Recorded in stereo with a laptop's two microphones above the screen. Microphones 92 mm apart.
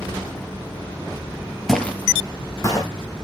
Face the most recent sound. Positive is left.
turn(degrees=35)  # may be behind; listen again after turning